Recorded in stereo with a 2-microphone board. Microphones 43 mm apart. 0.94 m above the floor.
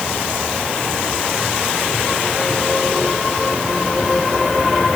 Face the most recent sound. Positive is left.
No sound to turn to.